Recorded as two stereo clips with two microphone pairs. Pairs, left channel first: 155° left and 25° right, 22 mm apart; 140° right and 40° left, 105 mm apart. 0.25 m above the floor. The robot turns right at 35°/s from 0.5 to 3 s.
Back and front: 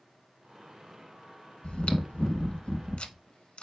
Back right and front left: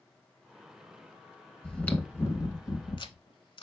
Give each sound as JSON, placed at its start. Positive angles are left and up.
{"t": 1.6, "sound": "chewing", "azimuth_deg": 135, "distance_m": 0.6}